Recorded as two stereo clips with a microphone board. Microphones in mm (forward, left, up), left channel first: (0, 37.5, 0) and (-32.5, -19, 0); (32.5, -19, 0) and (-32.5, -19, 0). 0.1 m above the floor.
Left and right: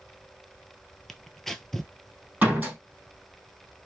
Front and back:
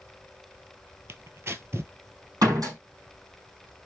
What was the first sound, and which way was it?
Tearing paper, 145° left.